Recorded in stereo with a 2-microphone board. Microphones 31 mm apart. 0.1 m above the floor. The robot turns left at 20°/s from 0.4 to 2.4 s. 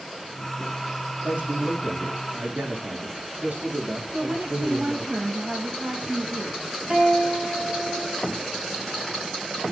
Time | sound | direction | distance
1.2 | a man speaking | 75° right (ahead or behind) | 5.5 m
4.1 | a woman speaking | 55° right (ahead or behind) | 6 m
6.9 | a guitar | 40° right (ahead or behind) | 4 m